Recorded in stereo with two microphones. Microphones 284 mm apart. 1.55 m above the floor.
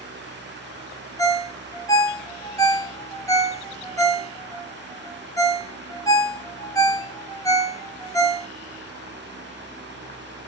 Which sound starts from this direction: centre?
A ringtone, at 1.2 s.